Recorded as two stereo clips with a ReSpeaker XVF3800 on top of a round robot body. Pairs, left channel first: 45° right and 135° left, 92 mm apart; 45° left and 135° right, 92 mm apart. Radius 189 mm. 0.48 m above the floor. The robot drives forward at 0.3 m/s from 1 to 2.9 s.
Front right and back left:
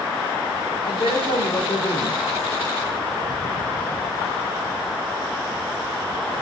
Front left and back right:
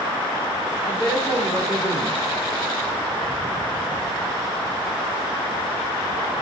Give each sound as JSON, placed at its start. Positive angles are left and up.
{"t": 0.8, "sound": "a man speaking", "azimuth_deg": -20, "distance_m": 3.0}